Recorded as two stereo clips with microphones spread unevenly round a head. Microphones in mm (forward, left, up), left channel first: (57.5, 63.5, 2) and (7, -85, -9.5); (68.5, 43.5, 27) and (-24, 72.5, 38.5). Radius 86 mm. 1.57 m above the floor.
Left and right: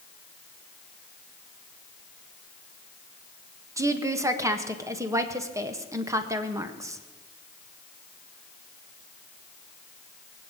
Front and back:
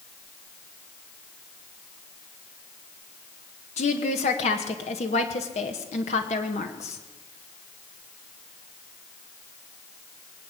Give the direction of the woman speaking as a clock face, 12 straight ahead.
1 o'clock.